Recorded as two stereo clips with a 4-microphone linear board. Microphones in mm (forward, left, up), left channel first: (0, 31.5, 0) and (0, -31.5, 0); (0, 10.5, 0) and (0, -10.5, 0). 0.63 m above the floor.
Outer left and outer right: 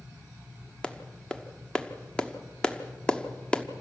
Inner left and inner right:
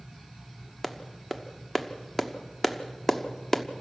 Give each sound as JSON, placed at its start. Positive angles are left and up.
{"t": 0.8, "sound": "a clap", "side_deg": 15, "distance_m": 1.2}